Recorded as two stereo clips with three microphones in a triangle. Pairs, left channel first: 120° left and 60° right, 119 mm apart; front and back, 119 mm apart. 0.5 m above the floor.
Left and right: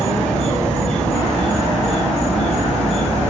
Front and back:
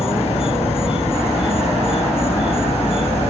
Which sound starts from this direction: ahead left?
An insect, at 0.0 s.